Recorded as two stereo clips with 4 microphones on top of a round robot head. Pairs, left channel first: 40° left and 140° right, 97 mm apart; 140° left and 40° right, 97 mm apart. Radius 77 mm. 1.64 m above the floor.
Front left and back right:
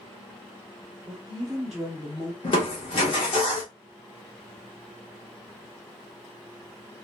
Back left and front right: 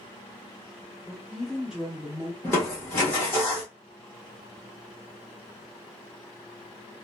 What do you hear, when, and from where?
1.1 s a woman speaking: 150° right, 0.7 m; by 2.3 s 15° left, 0.6 m
2.4 s crushing: 70° left, 1.0 m